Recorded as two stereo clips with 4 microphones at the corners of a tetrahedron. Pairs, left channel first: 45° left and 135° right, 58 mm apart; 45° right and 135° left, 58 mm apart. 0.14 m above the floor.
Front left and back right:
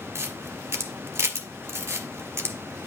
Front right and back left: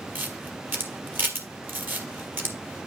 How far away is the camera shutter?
About 1.5 m.